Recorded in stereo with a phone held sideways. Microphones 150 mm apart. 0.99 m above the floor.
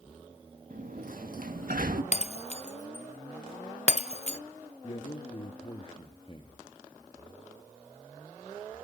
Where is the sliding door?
65° right (ahead or behind), 1.8 m.